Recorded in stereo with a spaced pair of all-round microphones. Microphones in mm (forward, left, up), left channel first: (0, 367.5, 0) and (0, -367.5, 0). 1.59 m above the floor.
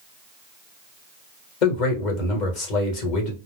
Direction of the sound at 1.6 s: 75° left (ahead or behind).